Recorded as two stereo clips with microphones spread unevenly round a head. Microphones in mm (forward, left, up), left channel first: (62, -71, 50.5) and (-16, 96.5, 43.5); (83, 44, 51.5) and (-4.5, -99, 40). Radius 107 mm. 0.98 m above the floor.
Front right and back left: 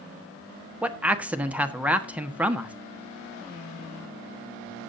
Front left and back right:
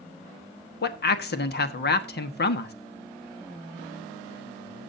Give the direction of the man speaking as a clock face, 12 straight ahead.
11 o'clock.